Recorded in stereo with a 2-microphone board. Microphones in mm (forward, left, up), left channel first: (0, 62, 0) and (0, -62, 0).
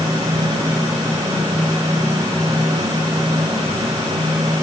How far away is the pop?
I don't hear a pop.